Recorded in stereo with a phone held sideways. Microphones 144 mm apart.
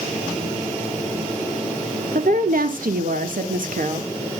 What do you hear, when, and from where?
2.1 s a woman speaking: 70° right (ahead or behind), 1.6 m; by 4.1 s 65° right (ahead or behind), 2 m